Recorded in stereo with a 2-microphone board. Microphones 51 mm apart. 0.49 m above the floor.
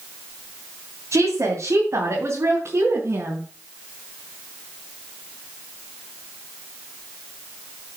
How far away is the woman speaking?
About 3 m.